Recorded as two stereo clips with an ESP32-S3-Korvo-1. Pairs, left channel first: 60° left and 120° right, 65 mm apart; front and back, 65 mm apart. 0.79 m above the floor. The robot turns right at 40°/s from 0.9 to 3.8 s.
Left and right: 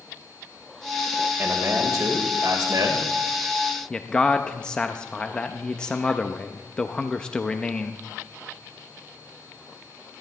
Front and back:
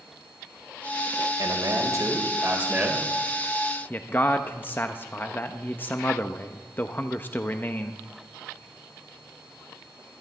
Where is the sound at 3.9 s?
5° right, 0.7 m.